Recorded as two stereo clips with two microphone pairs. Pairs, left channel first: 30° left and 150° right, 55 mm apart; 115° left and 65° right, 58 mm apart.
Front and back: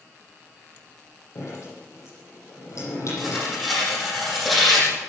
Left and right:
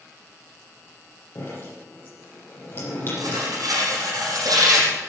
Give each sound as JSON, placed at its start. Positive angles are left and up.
{"t": 1.4, "sound": "dripping", "azimuth_deg": 65, "distance_m": 9.5}
{"t": 3.2, "sound": "tearing paper", "azimuth_deg": -55, "distance_m": 6.0}